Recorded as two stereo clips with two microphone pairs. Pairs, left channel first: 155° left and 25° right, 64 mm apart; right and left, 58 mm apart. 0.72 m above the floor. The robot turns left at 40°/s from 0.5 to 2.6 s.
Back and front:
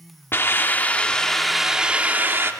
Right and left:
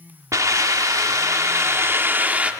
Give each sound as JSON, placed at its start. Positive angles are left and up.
{"t": 0.3, "sound": "a hiss", "azimuth_deg": 105, "distance_m": 1.1}